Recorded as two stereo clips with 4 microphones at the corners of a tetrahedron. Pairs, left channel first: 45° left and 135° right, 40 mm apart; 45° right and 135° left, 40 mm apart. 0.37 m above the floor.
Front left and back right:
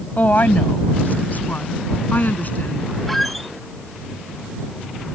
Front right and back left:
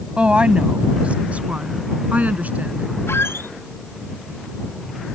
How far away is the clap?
I don't hear a clap.